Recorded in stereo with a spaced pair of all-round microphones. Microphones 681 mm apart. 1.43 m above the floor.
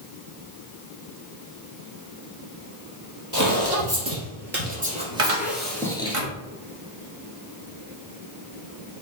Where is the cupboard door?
50° right (ahead or behind), 1.0 m.